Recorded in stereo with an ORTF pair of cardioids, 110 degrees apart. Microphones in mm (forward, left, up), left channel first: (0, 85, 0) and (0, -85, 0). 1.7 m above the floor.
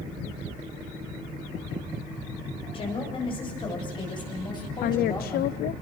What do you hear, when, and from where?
2.7 s a woman speaking: 35° left, 9 m; by 5.5 s 25° left, 10.5 m
4.8 s a woman speaking: 65° left, 0.7 m